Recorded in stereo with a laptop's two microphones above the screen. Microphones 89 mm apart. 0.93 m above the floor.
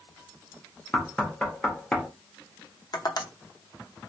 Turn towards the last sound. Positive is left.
turn(degrees=50)  # may be behind; listen again after turning